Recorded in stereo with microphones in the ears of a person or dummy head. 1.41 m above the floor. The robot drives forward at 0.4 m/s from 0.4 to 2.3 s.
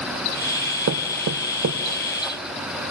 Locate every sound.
0.9 s knocking: 70° right (ahead or behind), 0.5 m; by 1.8 s 55° right (ahead or behind), 0.6 m